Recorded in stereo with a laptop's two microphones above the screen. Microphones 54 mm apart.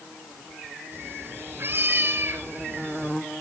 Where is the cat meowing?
45° right (ahead or behind), 2.0 m.